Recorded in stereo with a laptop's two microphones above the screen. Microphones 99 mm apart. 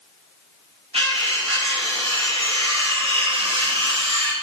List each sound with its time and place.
0.9 s cutlery clinking: 75° right (ahead or behind), 3.5 m